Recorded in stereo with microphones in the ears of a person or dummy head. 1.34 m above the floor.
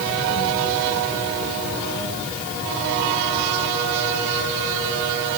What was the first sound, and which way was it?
Only background noise.